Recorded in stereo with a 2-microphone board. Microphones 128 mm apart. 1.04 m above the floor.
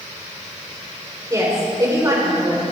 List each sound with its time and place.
1.3 s a woman speaking: 25° right (ahead or behind), 4.5 m